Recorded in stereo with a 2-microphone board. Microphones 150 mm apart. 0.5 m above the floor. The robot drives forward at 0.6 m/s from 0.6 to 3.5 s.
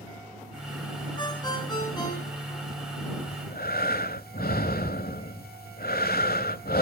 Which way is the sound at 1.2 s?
30° left (ahead or behind).